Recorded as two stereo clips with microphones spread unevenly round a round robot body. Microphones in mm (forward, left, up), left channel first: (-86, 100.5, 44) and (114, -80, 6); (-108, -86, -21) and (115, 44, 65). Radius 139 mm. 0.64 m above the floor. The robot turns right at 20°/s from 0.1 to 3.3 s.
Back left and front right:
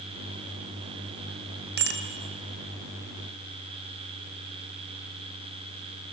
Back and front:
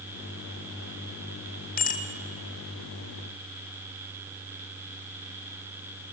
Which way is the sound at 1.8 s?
95° right.